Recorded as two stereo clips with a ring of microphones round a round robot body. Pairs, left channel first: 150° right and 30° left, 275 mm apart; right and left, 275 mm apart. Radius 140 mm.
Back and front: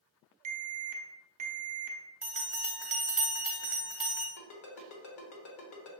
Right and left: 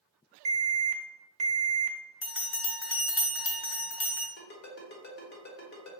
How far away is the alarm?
About 0.8 m.